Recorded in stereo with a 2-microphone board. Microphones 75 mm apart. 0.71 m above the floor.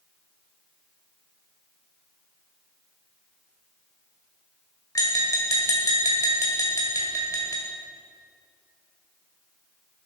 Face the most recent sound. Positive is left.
turn(degrees=45)  # may be behind; listen again after turning